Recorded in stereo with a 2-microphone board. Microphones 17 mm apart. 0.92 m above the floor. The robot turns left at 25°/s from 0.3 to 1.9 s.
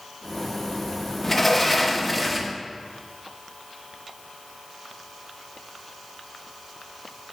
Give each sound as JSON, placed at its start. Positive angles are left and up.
{"t": 1.2, "sound": "a sliding door", "side_deg": 10, "distance_m": 0.7}